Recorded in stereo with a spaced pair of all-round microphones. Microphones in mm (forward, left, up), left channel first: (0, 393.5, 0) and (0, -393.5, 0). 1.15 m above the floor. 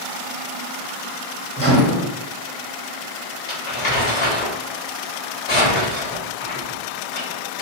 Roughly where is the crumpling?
Left.